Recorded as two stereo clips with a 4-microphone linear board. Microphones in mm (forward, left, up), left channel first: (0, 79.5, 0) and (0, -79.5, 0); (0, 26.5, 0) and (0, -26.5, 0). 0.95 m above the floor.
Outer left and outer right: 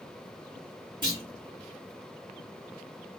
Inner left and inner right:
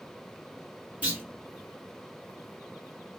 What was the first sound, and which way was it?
A clunk, 30° right (ahead or behind).